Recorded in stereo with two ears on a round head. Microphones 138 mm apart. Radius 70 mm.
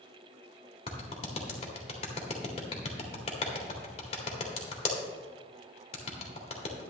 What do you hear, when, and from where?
0.9 s a clap: 40° left (ahead or behind), 1.7 m